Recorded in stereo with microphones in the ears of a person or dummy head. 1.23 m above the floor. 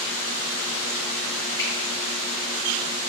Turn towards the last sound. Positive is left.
turn(degrees=20)  # may be behind; listen again after turning